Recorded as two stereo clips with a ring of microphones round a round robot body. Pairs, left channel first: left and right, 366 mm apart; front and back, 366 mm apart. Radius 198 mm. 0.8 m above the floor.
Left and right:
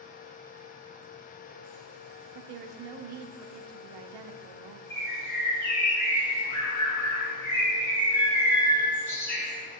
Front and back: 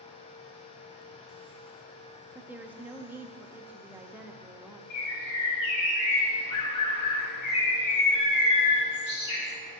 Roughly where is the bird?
Ahead.